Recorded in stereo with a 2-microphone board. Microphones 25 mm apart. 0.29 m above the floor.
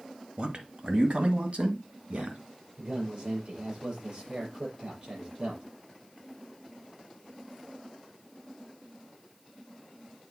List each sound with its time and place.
0.4 s a man speaking: 45° right (ahead or behind), 1.1 m; by 2.4 s 60° right (ahead or behind), 2.5 m
2.8 s a man speaking: 40° right (ahead or behind), 6 m